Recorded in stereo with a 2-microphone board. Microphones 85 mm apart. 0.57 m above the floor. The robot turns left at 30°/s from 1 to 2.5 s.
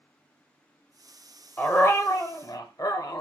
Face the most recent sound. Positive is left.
turn(degrees=50)  # may be behind; listen again after turning